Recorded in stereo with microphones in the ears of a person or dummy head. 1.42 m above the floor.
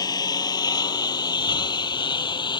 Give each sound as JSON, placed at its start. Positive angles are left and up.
{"t": 0.0, "sound": "a lawn mower", "side_deg": 15}